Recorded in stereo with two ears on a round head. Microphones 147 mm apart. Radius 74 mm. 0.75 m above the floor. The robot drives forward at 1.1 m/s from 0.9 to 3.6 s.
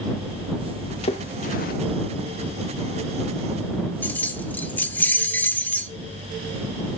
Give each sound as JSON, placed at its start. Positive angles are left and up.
{"t": 1.0, "sound": "a splash", "side_deg": 35, "distance_m": 1.5}
{"t": 4.0, "sound": "keys jangling", "side_deg": 10, "distance_m": 1.2}